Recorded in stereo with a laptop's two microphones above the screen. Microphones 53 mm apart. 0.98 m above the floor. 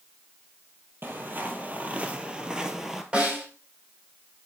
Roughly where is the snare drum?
Right.